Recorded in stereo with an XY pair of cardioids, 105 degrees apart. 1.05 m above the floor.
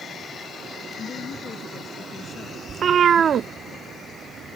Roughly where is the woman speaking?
Ahead left.